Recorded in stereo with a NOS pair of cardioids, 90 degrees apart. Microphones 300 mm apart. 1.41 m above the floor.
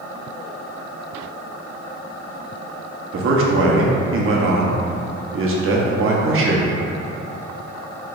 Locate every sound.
3.1 s a man speaking: 45° right, 0.9 m